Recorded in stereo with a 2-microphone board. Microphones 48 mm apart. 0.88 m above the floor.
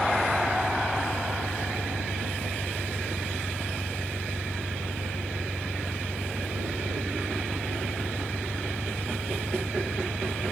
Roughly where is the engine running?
Centre.